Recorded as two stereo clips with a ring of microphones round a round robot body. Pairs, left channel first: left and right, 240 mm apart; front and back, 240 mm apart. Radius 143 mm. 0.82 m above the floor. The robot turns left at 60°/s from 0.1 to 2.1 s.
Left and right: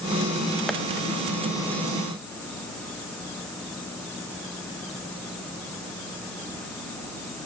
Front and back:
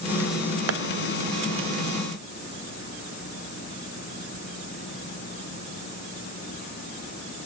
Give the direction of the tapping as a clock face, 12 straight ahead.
6 o'clock.